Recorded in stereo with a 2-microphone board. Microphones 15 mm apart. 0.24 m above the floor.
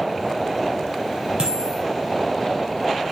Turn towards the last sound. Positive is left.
turn(degrees=-65)  # may be behind; listen again after turning